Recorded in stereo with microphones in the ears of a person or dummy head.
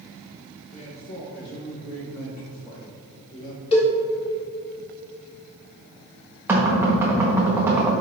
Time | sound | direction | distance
0.7 | a man speaking | 60° left (ahead or behind) | 2.5 m
3.7 | a cowbell | 30° left (ahead or behind) | 2 m
6.5 | knocking | 15° right (ahead or behind) | 1.4 m